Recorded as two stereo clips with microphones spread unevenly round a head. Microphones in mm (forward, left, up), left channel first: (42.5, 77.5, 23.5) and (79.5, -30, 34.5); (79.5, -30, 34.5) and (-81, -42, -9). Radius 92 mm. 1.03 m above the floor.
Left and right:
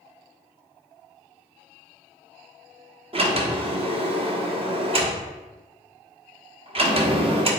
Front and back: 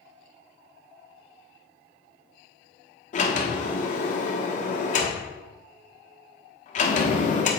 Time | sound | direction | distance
3.1 | a sliding door | 35° right | 1.3 m